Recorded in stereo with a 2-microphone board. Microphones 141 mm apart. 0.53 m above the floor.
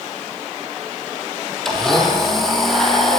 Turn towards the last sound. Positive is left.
turn(degrees=0)  # may be behind; listen again after turning